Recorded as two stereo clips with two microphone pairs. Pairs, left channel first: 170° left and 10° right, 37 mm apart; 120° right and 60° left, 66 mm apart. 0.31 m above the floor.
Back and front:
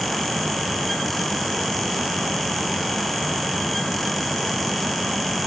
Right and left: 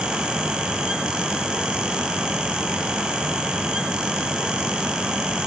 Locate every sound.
Only background noise.